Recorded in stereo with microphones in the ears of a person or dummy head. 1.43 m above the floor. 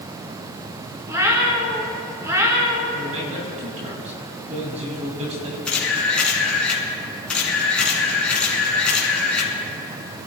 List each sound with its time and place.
1.1 s a cat meowing: 15° right (ahead or behind), 2.5 m
2.9 s a man speaking: 35° right (ahead or behind), 3 m
5.7 s a camera shutter: 5° left (ahead or behind), 4 m